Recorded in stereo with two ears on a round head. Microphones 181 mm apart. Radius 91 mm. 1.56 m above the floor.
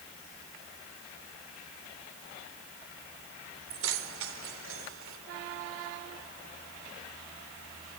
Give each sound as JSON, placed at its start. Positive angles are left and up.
{"t": 3.7, "sound": "keys jangling", "side_deg": -70, "distance_m": 3.5}